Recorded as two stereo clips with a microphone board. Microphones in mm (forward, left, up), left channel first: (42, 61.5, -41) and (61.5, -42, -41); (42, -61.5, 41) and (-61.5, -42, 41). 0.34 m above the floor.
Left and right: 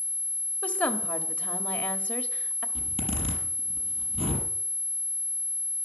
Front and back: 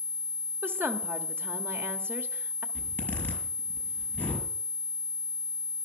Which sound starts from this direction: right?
A zipper, at 2.8 s.